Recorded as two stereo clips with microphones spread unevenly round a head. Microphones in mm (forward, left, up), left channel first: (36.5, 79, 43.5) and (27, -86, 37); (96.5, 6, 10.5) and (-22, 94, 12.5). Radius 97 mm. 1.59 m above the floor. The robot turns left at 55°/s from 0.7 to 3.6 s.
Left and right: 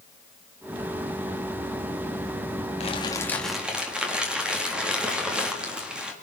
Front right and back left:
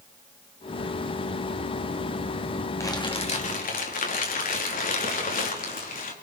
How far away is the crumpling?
About 4 m.